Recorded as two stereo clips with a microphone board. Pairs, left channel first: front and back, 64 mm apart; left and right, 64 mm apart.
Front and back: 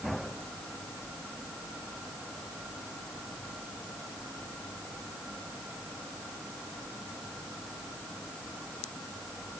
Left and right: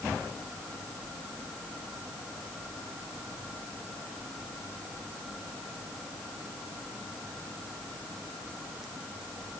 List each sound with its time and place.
Only background noise.